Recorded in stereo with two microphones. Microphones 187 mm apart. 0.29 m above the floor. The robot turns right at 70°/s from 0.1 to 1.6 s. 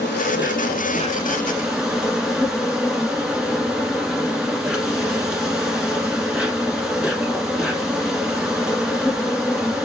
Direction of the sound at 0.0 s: 80° left.